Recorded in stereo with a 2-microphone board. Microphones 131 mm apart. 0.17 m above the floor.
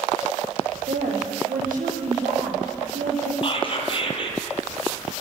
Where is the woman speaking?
80° right, 7.5 m.